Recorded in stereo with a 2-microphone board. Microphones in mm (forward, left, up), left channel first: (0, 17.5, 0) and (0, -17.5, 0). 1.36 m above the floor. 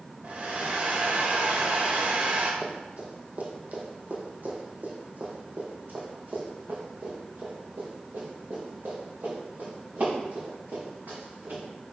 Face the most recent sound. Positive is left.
turn(degrees=-80)